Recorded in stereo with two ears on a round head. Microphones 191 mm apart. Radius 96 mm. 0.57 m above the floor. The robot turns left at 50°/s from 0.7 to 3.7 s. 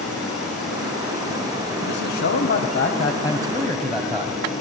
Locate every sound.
1.9 s a man speaking: 95° left, 3 m; by 4.4 s straight ahead, 3 m